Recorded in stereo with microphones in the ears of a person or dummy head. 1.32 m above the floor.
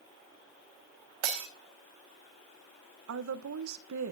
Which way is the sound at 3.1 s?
70° right (ahead or behind).